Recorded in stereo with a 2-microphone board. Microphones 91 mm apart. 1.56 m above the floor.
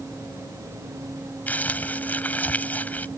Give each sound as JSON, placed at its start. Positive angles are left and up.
{"t": 1.5, "sound": "crumpling", "side_deg": 20}